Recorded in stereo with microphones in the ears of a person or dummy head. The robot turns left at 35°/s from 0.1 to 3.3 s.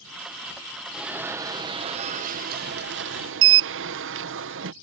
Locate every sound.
0.9 s an alarm: 5° right; by 4.7 s 85° right